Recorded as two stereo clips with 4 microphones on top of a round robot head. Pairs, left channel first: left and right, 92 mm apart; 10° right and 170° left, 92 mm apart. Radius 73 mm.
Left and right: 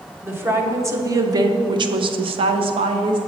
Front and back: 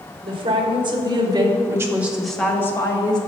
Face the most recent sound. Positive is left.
turn(degrees=-55)